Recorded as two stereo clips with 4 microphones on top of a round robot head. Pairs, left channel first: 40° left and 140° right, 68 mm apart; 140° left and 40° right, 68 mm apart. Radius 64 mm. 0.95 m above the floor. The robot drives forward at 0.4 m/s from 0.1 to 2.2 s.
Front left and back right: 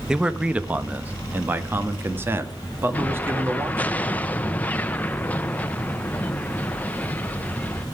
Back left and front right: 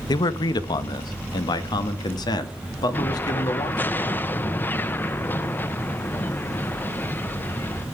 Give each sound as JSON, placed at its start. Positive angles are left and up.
{"t": 0.1, "sound": "a man speaking", "azimuth_deg": 140, "distance_m": 0.8}
{"t": 2.9, "sound": "an explosion", "azimuth_deg": 95, "distance_m": 0.9}